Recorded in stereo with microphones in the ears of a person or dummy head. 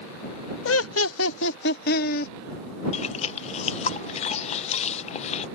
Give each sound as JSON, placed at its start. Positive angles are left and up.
{"t": 0.7, "sound": "laughter", "side_deg": 70}
{"t": 2.9, "sound": "chewing", "side_deg": 40}